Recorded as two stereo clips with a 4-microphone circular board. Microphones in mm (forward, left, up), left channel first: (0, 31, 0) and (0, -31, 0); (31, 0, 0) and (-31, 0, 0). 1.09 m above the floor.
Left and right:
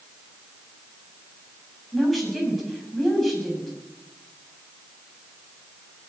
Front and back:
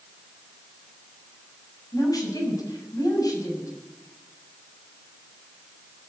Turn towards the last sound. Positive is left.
turn(degrees=0)